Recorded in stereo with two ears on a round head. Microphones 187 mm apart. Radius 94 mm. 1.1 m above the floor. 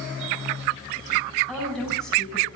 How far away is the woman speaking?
About 9 m.